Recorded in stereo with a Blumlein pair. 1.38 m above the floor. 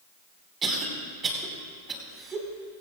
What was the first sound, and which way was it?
A cough, 20° right.